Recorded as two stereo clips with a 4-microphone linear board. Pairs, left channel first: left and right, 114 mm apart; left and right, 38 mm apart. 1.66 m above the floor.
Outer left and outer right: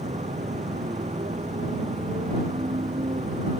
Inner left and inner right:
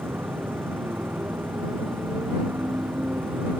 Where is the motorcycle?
85° right.